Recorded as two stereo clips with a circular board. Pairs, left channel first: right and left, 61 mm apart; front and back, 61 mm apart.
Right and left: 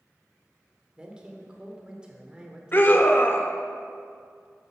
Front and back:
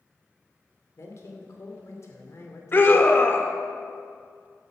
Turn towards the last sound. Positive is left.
turn(degrees=-45)